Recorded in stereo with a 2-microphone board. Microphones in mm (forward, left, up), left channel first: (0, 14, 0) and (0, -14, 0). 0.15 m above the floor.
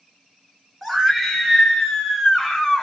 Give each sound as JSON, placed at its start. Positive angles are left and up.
{"t": 0.8, "sound": "a scream", "side_deg": -10, "distance_m": 1.5}